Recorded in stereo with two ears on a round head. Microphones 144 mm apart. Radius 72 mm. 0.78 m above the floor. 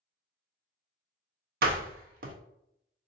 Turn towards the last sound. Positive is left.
turn(degrees=-60)  # may be behind; listen again after turning